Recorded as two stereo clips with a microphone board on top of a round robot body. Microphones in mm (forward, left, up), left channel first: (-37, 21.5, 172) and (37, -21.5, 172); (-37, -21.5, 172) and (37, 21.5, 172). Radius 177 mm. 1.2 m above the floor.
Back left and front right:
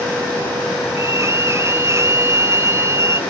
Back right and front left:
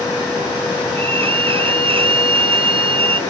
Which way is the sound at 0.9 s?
30° left.